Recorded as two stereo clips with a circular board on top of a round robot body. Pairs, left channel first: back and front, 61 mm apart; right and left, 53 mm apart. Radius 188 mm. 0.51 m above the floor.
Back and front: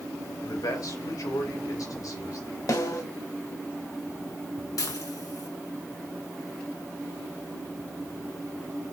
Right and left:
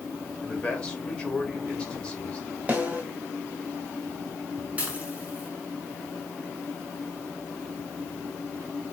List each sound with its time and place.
0.4 s a man speaking: 170° right, 3.5 m
2.7 s a snare drum: 155° left, 2.5 m
4.8 s dishes clattering: 155° left, 3.5 m